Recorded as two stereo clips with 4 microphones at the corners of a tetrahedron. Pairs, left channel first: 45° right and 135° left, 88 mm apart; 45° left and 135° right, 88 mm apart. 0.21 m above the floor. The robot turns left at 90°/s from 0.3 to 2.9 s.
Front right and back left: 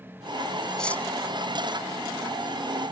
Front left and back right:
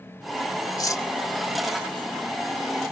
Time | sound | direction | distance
0.8 | cutlery clinking | 35° left | 0.7 m